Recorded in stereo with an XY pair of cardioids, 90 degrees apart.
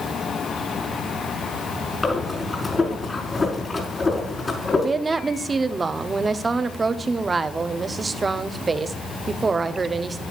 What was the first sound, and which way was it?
Breathing, 25° left.